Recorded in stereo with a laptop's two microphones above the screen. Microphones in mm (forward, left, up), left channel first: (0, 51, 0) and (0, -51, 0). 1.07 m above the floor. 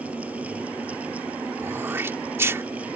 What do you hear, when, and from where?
0.0 s a fan: 15° right (ahead or behind)
1.6 s throat clearing: 25° right (ahead or behind)